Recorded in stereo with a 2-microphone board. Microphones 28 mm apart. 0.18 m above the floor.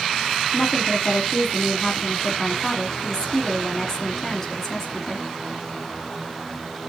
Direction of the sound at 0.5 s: 20° left (ahead or behind).